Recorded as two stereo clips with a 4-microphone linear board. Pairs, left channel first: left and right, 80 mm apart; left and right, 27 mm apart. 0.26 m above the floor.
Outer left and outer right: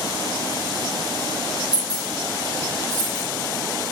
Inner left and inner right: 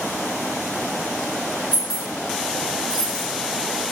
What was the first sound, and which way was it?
Keys jangling, 20° right (ahead or behind).